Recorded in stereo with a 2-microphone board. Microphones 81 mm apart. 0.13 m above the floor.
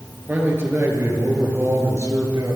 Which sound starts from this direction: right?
A man speaking, at 0.3 s.